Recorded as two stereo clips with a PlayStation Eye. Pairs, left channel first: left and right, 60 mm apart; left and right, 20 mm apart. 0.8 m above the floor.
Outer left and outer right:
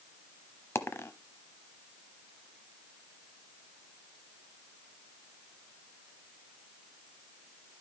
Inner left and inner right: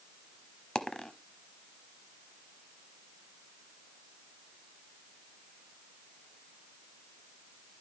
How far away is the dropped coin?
About 0.8 m.